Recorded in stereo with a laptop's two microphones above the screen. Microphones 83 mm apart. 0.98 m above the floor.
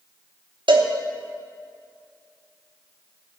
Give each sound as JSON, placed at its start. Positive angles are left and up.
{"t": 0.7, "sound": "a cowbell", "side_deg": -80, "distance_m": 0.9}